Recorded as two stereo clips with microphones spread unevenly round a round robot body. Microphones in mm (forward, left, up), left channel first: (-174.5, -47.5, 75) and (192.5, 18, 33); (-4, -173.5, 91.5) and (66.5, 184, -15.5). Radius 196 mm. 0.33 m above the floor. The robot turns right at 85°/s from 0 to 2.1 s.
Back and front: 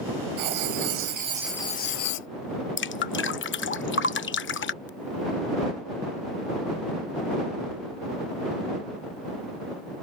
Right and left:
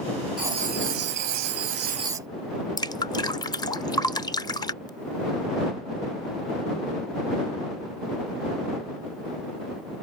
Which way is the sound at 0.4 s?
Straight ahead.